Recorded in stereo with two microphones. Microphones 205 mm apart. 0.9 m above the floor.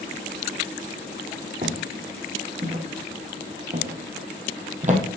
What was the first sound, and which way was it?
Footsteps, 45° right (ahead or behind).